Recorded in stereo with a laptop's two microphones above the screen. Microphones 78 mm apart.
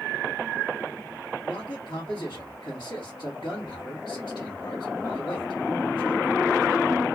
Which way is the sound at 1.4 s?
70° left (ahead or behind).